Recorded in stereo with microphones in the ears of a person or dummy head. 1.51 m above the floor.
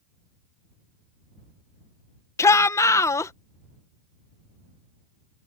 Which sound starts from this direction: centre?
A shout, at 2.4 s.